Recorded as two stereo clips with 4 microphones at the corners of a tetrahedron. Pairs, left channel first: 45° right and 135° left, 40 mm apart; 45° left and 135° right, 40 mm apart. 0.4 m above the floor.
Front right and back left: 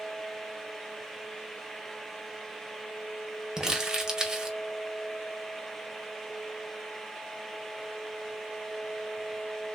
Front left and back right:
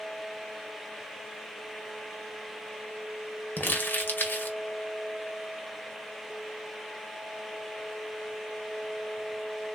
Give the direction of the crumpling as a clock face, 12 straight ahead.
10 o'clock.